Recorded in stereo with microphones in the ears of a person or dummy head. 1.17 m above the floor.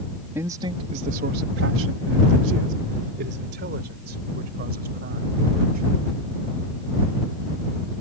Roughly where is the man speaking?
Centre.